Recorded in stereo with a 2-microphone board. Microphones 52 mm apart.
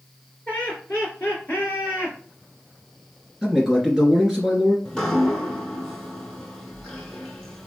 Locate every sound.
0.5 s laughter: 30° left (ahead or behind), 1.8 m; by 2.2 s 40° left (ahead or behind), 1.8 m
3.4 s a man speaking: 5° right (ahead or behind), 1.8 m
4.8 s dripping: 10° left (ahead or behind), 1.1 m